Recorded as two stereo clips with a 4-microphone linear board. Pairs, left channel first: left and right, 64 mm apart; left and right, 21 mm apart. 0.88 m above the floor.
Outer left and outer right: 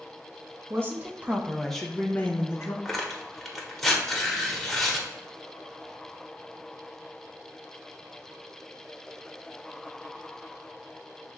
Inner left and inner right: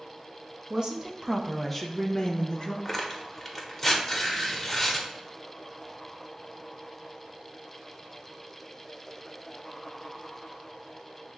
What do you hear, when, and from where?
0.7 s a woman speaking: 40° right (ahead or behind), 0.9 m; by 2.8 s 45° left (ahead or behind), 0.9 m
2.9 s tearing paper: 5° left (ahead or behind), 0.8 m